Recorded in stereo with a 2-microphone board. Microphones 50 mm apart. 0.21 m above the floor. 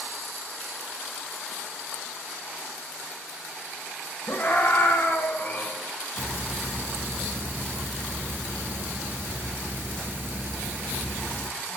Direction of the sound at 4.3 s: 55° left (ahead or behind).